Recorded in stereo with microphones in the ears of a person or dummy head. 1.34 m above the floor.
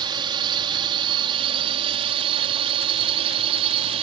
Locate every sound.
0.0 s a drone: 25° right (ahead or behind); by 4.0 s 30° right (ahead or behind)